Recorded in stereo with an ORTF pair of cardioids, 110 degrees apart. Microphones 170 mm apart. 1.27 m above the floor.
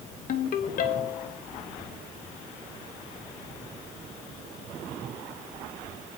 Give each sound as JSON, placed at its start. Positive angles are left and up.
{"t": 0.3, "sound": "a ringtone", "azimuth_deg": 55, "distance_m": 1.0}